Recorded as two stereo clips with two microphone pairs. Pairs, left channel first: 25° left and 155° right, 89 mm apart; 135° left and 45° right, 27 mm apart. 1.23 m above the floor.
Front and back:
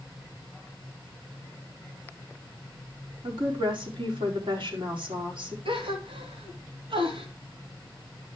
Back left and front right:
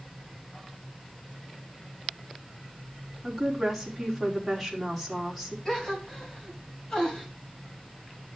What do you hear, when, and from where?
3.2 s a woman speaking: 130° right, 4.5 m
5.7 s a gasp: 155° right, 3 m